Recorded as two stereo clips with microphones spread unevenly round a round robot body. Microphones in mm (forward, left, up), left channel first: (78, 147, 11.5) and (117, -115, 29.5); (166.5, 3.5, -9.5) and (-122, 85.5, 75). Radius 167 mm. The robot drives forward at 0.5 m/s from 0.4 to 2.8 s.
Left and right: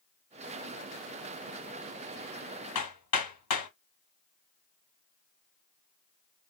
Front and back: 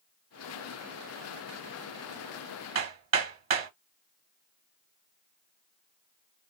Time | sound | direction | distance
2.8 | hammering | 115° left | 1.8 m